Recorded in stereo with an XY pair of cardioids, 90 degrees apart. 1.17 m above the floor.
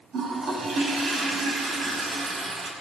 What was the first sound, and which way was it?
A toilet flushing, 60° right.